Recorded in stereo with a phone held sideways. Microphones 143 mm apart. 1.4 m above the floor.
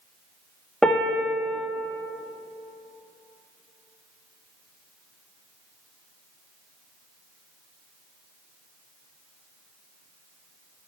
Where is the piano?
5° left (ahead or behind), 0.7 m.